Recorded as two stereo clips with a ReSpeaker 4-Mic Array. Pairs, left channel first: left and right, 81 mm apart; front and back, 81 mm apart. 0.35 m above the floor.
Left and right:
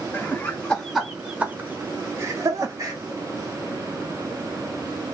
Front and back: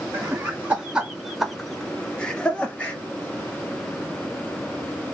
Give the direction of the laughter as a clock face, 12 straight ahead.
8 o'clock.